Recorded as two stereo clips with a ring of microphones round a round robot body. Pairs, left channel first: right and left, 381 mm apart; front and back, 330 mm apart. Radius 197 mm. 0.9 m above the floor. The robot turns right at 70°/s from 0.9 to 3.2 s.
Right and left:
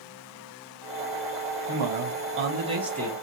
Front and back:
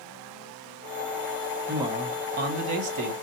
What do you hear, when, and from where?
1.7 s a man speaking: 95° left, 1.2 m; by 3.1 s 165° right, 1.2 m